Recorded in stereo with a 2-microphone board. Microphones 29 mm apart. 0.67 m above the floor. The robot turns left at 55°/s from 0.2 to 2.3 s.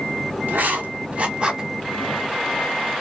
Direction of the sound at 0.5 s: 90° right.